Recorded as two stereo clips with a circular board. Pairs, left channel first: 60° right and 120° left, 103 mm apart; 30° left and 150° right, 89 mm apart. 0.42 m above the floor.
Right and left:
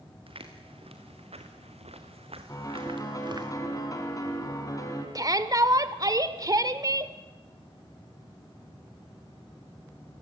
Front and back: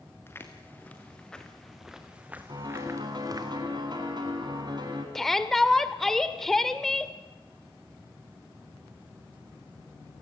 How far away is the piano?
About 4.5 m.